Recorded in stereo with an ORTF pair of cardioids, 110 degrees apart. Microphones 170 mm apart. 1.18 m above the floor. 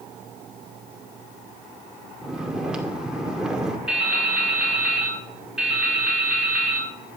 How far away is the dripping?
About 5 m.